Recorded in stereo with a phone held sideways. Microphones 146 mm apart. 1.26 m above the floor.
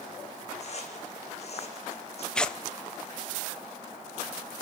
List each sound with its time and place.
0.6 s footsteps: 50° left (ahead or behind), 3 m
2.4 s tearing paper: 5° left (ahead or behind), 0.5 m